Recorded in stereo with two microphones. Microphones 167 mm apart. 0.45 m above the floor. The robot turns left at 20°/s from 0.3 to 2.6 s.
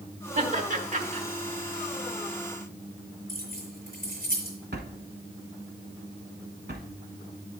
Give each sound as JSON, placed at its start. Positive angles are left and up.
{"t": 0.3, "sound": "laughter", "side_deg": -50, "distance_m": 1.2}
{"t": 3.3, "sound": "keys jangling", "side_deg": -55, "distance_m": 4.5}
{"t": 4.7, "sound": "a drawer", "side_deg": -80, "distance_m": 1.0}